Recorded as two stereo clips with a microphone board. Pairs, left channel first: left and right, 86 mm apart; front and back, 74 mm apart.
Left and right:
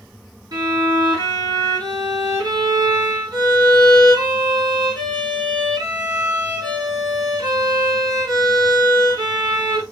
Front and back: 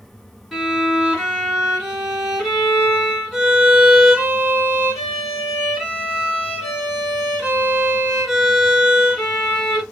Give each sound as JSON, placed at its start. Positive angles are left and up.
{"t": 0.5, "sound": "a violin", "azimuth_deg": -95, "distance_m": 2.0}